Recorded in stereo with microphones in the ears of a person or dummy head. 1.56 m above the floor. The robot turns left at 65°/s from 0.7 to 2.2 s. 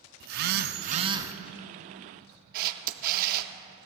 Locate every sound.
0.2 s a phone buzzing: 125° right, 0.6 m; by 1.3 s 165° right, 0.6 m
2.5 s a camera shutter: 50° right (ahead or behind), 0.8 m